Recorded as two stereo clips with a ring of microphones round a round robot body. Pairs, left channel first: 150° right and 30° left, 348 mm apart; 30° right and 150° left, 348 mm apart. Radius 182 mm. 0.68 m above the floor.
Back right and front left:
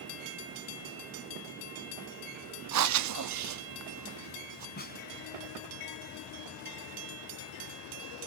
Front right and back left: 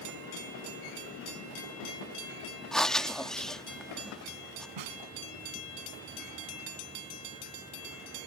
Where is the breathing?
60° left.